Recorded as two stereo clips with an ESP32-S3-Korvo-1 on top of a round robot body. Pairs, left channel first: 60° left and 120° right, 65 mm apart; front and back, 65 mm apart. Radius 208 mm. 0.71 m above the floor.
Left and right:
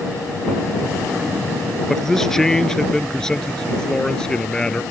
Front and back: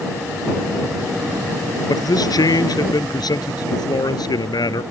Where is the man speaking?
25° right; by 4.8 s 15° right.